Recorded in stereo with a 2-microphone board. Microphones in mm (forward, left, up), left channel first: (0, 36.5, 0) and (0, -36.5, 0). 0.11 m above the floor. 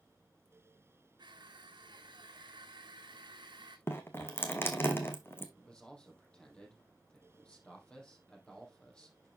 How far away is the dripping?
About 1.3 m.